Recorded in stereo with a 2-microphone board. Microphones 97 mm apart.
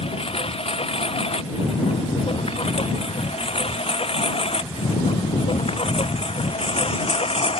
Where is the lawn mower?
85° left; by 7.6 s 80° left.